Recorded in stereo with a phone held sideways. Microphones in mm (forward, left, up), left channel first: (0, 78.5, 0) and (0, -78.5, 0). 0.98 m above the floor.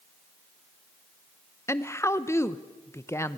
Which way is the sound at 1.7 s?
15° left (ahead or behind).